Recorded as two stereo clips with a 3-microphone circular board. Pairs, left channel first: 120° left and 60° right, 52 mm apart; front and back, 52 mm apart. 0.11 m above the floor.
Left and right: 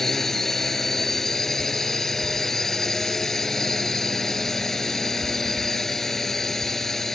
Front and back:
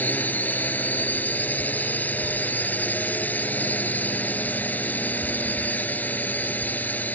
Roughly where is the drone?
Ahead left.